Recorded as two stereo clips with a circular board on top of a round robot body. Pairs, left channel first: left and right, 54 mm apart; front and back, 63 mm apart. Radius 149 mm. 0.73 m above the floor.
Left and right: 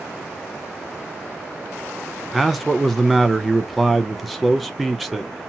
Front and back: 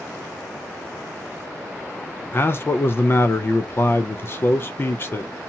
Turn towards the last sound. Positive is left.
turn(degrees=0)